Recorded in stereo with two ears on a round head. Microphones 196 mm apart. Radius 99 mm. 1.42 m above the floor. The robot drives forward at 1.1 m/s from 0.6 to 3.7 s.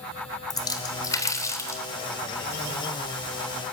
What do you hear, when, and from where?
0.5 s a splash: 20° left (ahead or behind), 3.5 m; by 1.8 s 15° left (ahead or behind), 5 m